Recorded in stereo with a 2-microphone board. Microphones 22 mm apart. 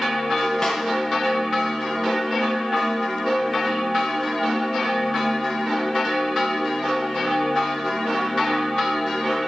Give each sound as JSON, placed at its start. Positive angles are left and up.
{"t": 0.6, "sound": "a snare drum", "side_deg": 25, "distance_m": 3.5}